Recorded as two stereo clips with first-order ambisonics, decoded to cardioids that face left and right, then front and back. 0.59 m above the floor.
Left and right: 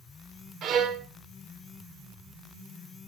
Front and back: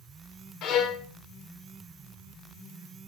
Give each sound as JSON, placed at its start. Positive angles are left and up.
{"t": 0.6, "sound": "a violin", "azimuth_deg": -40, "distance_m": 1.4}